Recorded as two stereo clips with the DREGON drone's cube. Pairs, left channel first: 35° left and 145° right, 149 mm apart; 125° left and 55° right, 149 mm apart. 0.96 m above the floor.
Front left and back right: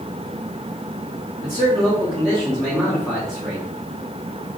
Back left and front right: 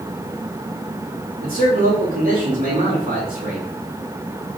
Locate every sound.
1.4 s a man speaking: 45° right, 1.9 m